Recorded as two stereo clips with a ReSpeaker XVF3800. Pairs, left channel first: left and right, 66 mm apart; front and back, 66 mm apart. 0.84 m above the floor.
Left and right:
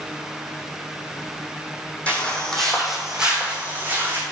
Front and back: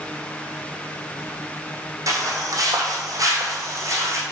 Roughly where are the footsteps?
Behind left.